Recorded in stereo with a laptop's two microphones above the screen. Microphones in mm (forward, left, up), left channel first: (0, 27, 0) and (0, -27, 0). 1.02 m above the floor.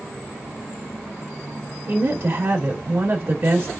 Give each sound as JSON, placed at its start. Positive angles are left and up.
{"t": 1.9, "sound": "a woman speaking", "side_deg": -55, "distance_m": 2.5}